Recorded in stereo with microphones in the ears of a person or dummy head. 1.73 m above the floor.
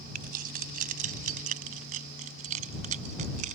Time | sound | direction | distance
0.1 | keys jangling | 50° right (ahead or behind) | ?